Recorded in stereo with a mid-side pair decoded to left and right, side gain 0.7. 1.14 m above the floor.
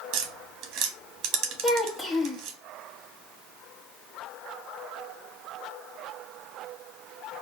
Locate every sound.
0.1 s tapping: 55° right, 1.1 m
1.6 s a child speaking: 15° left, 1.5 m